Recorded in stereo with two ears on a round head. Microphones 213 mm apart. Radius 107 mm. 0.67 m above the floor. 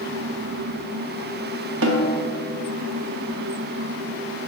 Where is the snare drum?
55° right (ahead or behind), 0.7 m.